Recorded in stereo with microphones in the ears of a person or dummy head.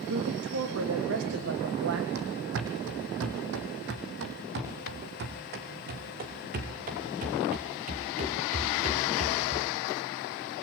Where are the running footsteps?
55° right (ahead or behind), 3.5 m; by 9.7 s 40° right (ahead or behind), 8 m.